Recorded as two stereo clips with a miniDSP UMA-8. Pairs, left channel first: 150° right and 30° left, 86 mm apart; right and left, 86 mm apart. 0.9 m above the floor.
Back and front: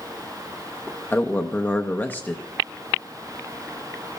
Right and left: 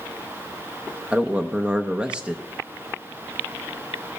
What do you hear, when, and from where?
1.1 s a man speaking: 160° left, 0.7 m